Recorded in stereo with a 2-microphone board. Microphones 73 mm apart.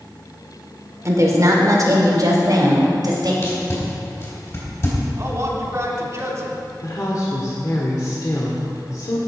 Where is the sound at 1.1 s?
45° right (ahead or behind), 1.8 m; by 3.3 s 65° right (ahead or behind), 3 m.